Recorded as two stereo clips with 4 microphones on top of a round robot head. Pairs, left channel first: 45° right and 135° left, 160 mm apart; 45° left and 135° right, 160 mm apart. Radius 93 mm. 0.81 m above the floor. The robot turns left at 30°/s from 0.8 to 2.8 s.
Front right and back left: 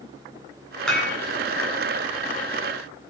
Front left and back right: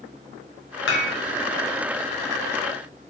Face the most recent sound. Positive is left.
turn(degrees=-20)